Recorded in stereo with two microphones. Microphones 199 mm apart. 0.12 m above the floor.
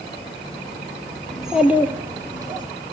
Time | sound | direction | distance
1.3 | a child speaking | centre (ahead or behind) | 1.9 m